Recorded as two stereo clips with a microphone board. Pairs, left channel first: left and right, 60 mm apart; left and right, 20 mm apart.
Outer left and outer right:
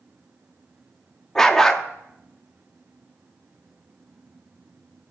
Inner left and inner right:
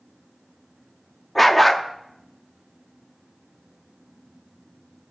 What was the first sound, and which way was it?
A dog barking, 10° left (ahead or behind).